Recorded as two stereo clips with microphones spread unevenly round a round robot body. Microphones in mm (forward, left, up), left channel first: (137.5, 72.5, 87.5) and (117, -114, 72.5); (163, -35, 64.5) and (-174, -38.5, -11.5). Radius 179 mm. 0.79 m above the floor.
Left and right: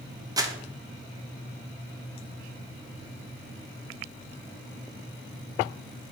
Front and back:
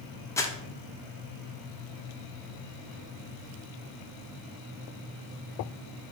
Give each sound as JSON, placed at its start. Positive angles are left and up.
{"t": 0.4, "sound": "crumpling", "azimuth_deg": -100, "distance_m": 0.6}